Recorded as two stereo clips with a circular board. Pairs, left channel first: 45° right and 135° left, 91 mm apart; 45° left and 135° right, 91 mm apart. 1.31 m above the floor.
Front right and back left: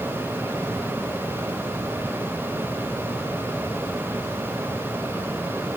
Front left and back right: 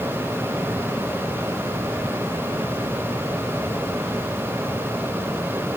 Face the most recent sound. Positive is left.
No sound to turn to.